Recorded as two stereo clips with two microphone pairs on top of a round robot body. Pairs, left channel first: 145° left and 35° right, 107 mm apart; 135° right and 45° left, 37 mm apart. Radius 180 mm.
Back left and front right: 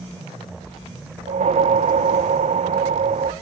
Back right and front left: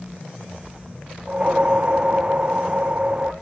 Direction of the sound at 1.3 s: 20° right.